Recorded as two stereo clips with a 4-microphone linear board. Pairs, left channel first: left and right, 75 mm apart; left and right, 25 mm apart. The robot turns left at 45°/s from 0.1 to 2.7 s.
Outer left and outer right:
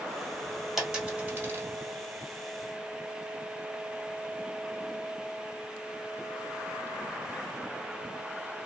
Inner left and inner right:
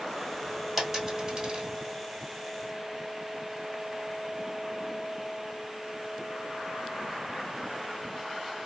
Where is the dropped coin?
5° right (ahead or behind), 1.5 m; by 1.7 s 40° right (ahead or behind), 1.5 m.